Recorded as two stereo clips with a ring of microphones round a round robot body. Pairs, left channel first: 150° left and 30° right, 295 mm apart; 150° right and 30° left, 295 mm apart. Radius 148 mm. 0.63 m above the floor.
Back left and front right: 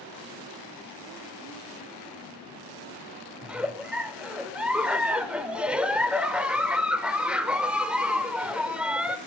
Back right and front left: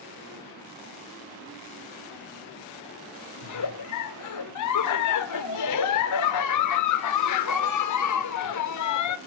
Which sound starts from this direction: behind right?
A giggle, at 3.4 s.